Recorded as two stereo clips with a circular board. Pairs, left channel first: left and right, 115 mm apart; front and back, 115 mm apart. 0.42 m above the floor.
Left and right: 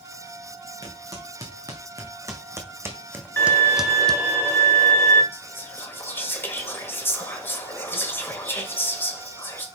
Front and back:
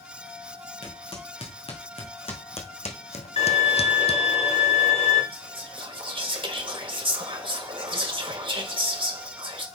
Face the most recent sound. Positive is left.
turn(degrees=155)